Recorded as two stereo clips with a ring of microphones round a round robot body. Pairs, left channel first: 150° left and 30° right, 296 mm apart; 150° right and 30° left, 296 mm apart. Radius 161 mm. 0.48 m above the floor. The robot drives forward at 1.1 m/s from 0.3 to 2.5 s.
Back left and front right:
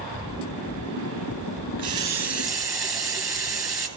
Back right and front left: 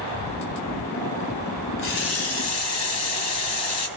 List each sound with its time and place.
1.8 s a running tap: 105° right, 2.5 m; by 3.9 s 120° right, 3 m